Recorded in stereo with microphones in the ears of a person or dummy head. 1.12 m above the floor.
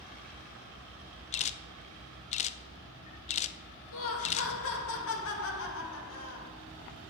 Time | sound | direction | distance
1.3 | a camera shutter | 35° left (ahead or behind) | 0.7 m
3.9 | laughter | 65° left (ahead or behind) | 2 m